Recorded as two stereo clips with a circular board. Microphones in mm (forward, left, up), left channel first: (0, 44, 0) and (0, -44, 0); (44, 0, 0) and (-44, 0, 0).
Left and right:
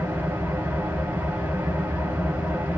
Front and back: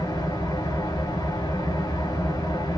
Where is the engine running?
30° right, 1.0 m.